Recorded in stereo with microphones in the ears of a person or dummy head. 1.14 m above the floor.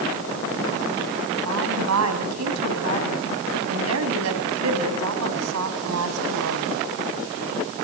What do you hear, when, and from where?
1.4 s a woman speaking: 85° right, 7 m